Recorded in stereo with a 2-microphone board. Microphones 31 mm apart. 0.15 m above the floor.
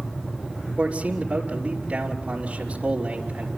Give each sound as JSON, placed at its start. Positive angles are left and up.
{"t": 0.8, "sound": "a man speaking", "side_deg": -40, "distance_m": 3.0}